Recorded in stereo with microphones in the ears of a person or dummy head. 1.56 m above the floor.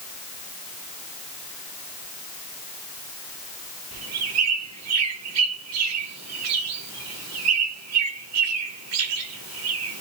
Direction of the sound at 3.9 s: 75° right (ahead or behind).